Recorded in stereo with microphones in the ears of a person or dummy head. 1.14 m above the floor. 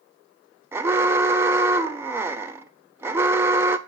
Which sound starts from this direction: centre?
An alarm, at 0.7 s.